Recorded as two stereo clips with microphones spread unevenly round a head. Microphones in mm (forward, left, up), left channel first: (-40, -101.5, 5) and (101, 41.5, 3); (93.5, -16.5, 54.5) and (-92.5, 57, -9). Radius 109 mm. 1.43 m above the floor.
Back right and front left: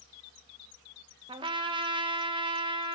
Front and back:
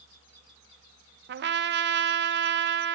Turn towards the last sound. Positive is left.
turn(degrees=115)